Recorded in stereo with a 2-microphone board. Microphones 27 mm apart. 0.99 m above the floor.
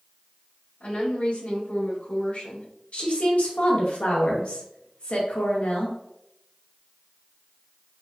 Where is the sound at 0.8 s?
60° left (ahead or behind), 1.8 m.